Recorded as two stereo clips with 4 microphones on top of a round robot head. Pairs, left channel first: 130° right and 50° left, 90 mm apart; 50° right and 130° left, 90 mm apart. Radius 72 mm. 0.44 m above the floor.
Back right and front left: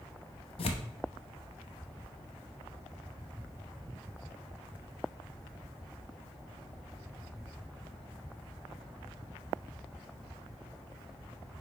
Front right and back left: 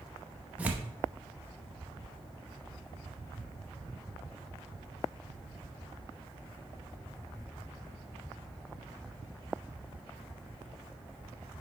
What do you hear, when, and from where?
0.6 s tearing paper: 155° right, 0.8 m